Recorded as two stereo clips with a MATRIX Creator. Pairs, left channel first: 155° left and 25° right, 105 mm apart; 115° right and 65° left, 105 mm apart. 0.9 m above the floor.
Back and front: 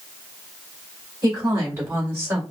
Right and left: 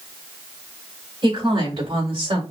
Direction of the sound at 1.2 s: 25° left.